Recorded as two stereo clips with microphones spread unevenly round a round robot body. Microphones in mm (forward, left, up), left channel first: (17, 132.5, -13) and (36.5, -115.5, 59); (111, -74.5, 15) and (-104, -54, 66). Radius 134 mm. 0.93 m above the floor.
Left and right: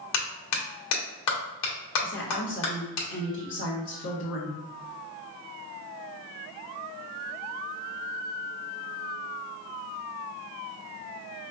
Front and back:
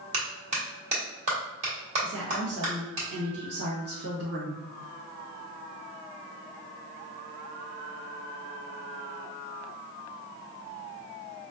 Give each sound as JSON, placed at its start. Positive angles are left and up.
{"t": 0.1, "sound": "a clap", "azimuth_deg": 105, "distance_m": 1.3}
{"t": 2.0, "sound": "a woman speaking", "azimuth_deg": 125, "distance_m": 1.2}